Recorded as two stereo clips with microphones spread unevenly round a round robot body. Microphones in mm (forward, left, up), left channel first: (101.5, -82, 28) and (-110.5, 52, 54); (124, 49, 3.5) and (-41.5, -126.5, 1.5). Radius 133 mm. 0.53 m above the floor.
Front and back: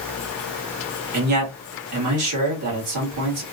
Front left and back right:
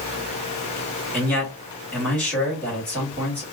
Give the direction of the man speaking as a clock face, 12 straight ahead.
8 o'clock.